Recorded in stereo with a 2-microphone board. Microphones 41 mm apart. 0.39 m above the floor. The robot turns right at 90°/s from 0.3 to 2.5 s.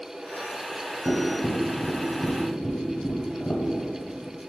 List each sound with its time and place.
1.1 s tapping: 35° right (ahead or behind), 0.9 m; by 3.6 s 65° left (ahead or behind), 0.9 m